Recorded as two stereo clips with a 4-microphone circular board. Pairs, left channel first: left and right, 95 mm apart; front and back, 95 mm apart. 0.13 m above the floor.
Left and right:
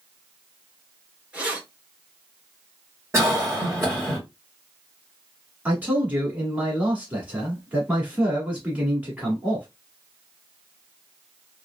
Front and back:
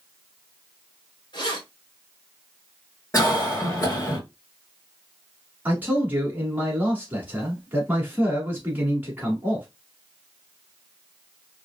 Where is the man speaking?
140° right, 1.2 m.